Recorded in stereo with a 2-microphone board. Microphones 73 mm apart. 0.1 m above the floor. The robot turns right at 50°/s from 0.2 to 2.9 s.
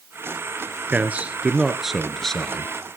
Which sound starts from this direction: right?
A man speaking, at 0.9 s.